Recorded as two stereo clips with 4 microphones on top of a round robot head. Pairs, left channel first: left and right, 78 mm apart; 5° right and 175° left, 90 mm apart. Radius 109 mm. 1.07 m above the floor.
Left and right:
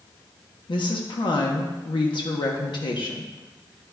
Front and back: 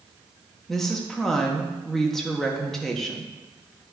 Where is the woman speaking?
80° left, 1.0 m.